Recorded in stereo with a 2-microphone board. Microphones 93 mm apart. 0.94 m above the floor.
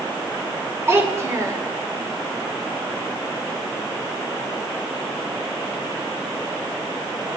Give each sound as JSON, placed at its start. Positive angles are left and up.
{"t": 0.9, "sound": "a child speaking", "side_deg": -30, "distance_m": 2.5}